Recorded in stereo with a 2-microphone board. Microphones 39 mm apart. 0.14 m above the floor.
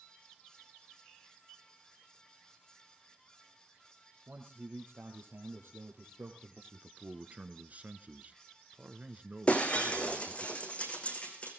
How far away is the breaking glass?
About 3.5 m.